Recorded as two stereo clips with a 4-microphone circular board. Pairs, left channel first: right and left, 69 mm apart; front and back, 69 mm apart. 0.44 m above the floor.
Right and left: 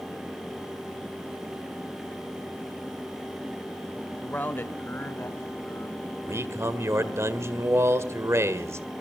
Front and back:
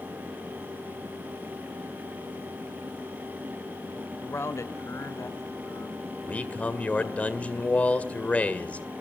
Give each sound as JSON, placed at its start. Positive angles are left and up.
{"t": 4.2, "sound": "a man speaking", "azimuth_deg": -35, "distance_m": 1.2}
{"t": 6.2, "sound": "a man speaking", "azimuth_deg": 65, "distance_m": 1.7}